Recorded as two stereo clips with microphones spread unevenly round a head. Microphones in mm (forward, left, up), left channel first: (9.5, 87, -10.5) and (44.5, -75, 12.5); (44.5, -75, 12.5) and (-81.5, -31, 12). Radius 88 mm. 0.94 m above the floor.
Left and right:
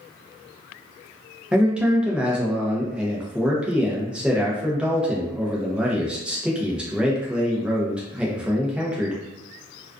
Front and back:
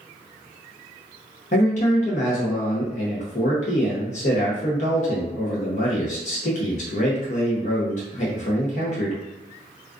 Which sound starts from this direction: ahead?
A man speaking, at 1.5 s.